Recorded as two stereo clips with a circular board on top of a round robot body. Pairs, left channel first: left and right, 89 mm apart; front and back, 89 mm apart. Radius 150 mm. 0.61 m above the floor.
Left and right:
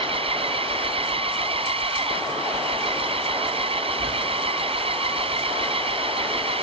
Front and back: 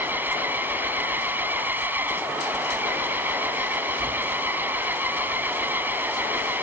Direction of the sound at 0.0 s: 110° right.